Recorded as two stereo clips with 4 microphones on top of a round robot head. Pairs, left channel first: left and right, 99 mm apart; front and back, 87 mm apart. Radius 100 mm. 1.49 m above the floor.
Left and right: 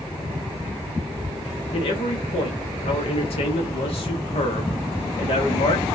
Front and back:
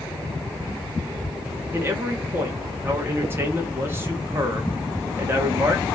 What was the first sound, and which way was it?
A man speaking, 115° left.